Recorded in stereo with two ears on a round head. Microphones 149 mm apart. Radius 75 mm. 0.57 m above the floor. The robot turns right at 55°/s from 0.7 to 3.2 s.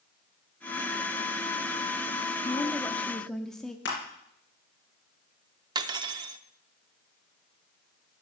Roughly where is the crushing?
Left.